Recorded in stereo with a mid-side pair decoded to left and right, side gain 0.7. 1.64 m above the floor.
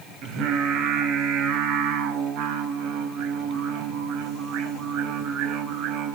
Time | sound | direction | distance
0.2 | singing | 60° right | 4.5 m